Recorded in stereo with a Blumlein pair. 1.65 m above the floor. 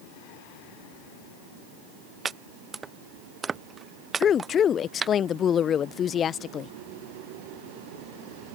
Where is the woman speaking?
25° left.